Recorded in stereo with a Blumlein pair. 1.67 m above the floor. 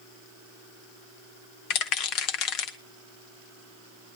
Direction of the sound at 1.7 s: 40° left.